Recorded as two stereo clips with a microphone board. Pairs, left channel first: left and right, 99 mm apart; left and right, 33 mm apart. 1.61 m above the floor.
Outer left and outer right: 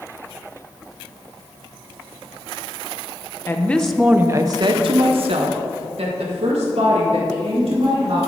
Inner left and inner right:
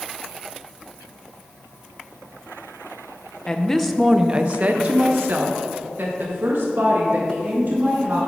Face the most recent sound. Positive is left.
turn(degrees=-85)